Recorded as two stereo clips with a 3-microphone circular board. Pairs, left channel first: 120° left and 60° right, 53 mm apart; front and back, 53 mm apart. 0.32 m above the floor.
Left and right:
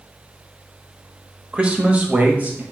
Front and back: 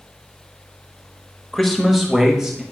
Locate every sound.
1.5 s a man speaking: 75° right, 0.9 m; by 2.6 s 105° right, 1.3 m